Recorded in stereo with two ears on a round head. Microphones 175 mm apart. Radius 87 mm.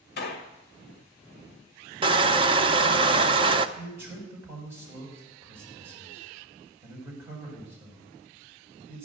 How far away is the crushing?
About 0.7 m.